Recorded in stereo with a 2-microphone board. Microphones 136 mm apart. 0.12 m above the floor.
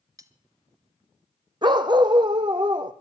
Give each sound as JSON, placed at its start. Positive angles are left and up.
{"t": 0.2, "sound": "cutlery clinking", "side_deg": -25, "distance_m": 0.9}
{"t": 1.6, "sound": "a dog barking", "side_deg": -35, "distance_m": 1.1}